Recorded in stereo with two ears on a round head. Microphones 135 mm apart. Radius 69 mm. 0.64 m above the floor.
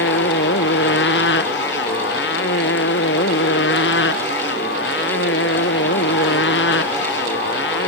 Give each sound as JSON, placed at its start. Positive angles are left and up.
{"t": 0.0, "sound": "a motorcycle", "side_deg": 90}